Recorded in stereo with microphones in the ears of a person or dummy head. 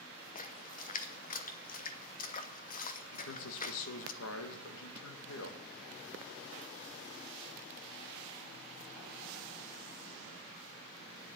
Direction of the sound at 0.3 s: 40° left (ahead or behind).